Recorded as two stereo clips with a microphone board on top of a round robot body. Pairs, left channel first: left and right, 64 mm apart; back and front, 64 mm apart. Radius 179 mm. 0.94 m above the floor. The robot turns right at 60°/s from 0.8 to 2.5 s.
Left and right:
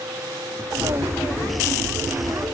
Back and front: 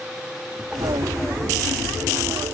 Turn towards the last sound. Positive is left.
No sound to turn to.